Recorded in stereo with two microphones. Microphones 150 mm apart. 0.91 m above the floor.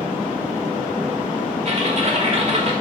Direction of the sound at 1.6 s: 45° right (ahead or behind).